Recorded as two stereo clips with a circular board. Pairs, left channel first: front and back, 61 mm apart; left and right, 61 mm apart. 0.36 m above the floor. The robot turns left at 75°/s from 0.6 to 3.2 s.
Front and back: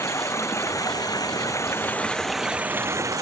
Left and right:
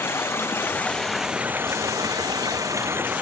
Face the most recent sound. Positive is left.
turn(degrees=-155)